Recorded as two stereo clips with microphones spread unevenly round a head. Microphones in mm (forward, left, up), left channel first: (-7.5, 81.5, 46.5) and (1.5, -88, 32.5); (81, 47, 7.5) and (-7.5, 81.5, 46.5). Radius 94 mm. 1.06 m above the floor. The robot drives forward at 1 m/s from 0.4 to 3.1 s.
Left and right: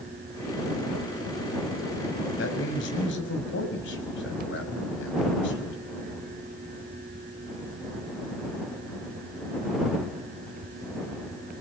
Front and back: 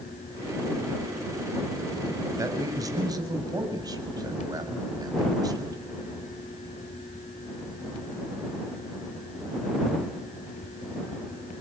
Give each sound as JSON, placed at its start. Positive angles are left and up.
{"t": 2.4, "sound": "a man speaking", "azimuth_deg": 105, "distance_m": 5.5}